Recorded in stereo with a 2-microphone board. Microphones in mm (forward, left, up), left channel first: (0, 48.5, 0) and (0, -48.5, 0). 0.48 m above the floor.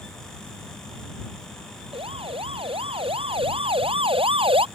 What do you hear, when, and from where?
1.9 s a siren: 70° right (ahead or behind); by 4.7 s 65° right (ahead or behind)